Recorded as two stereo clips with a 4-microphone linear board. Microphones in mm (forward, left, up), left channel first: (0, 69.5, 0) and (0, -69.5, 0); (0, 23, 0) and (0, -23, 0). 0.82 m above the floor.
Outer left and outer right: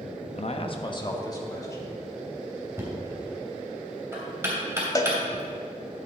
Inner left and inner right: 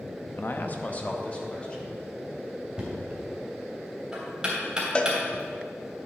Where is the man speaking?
50° left (ahead or behind), 0.6 m; by 1.9 s 20° left (ahead or behind), 2.5 m.